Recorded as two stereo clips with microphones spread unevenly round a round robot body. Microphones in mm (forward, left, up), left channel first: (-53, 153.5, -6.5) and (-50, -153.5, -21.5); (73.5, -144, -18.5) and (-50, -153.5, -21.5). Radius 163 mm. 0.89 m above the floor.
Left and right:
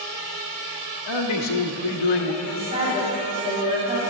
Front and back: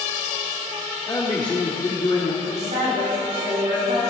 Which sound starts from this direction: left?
A man speaking, at 1.1 s.